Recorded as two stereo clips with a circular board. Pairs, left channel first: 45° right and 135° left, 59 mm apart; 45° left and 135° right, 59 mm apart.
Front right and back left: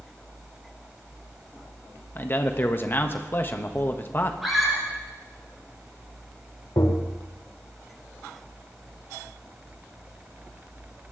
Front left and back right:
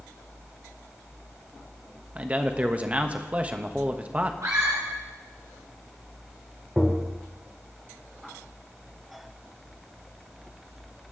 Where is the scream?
135° right, 3.5 m.